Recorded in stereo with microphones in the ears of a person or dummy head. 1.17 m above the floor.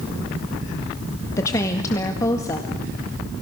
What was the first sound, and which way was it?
A woman speaking, 15° left (ahead or behind).